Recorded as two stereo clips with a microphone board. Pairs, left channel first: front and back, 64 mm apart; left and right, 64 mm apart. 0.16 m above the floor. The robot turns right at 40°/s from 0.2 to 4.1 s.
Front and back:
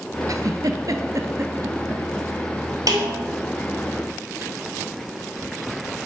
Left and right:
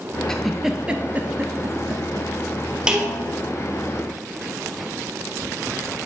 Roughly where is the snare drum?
Behind.